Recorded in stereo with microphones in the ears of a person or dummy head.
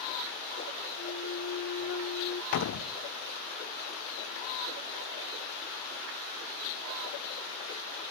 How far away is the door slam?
About 0.6 m.